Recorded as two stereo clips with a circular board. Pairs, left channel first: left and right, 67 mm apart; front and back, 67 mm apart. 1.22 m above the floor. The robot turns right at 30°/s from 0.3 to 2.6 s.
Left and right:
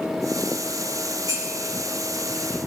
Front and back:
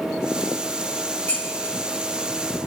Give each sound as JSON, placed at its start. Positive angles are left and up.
{"t": 1.3, "sound": "dishes clattering", "azimuth_deg": -65, "distance_m": 6.0}